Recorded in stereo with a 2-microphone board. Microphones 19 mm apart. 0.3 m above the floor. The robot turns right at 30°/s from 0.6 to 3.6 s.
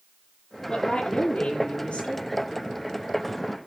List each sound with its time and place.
0.7 s a woman speaking: 35° left, 6.5 m; by 2.3 s 85° left, 6.5 m